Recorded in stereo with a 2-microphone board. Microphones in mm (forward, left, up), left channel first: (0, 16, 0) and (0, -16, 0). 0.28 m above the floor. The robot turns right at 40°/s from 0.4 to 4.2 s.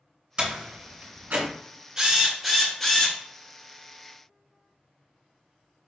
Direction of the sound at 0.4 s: 30° right (ahead or behind).